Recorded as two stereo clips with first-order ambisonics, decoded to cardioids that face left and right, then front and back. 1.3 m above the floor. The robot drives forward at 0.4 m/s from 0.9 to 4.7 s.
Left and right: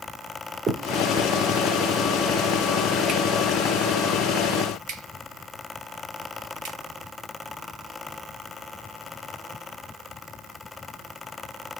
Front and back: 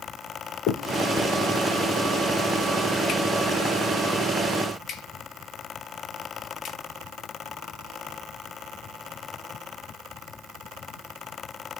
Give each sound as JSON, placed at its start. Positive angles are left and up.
{"t": 0.7, "sound": "a finger snap", "azimuth_deg": -30, "distance_m": 3.0}